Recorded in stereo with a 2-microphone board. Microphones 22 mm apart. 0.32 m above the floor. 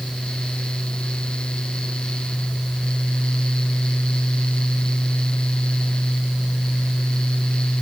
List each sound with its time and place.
Only background noise.